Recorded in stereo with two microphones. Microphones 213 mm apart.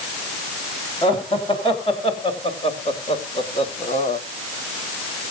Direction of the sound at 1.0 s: 25° left (ahead or behind).